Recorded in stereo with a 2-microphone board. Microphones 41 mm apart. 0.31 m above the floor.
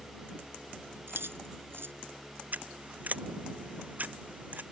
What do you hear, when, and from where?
1.1 s keys jangling: 75° right (ahead or behind)
2.5 s scissors: 45° right (ahead or behind)